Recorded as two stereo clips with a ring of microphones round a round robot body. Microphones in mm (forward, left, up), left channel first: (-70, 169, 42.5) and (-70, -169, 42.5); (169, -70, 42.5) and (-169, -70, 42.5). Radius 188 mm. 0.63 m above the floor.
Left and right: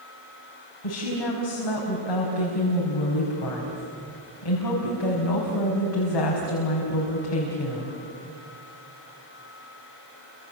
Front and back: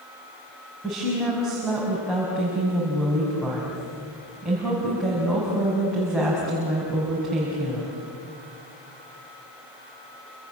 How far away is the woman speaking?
About 5 m.